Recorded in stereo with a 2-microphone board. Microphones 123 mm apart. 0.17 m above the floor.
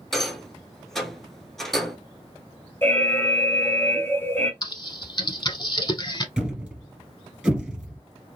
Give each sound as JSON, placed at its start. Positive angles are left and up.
{"t": 0.1, "sound": "a rattle", "side_deg": 5, "distance_m": 0.6}
{"t": 2.8, "sound": "an alarm", "side_deg": 20, "distance_m": 0.8}
{"t": 4.6, "sound": "typing on a keyboard", "side_deg": 35, "distance_m": 0.6}
{"t": 6.4, "sound": "a thud", "side_deg": -5, "distance_m": 1.3}